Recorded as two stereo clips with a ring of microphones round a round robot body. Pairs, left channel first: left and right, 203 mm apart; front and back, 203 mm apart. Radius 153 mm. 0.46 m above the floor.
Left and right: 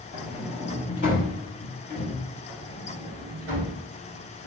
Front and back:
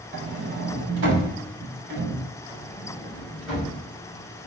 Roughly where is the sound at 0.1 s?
Behind left.